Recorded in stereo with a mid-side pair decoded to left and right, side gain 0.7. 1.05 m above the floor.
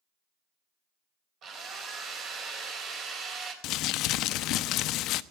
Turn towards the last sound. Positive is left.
turn(degrees=55)